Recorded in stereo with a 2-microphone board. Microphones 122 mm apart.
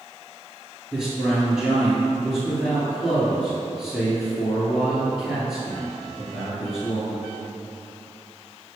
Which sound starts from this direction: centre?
A man speaking, at 0.9 s.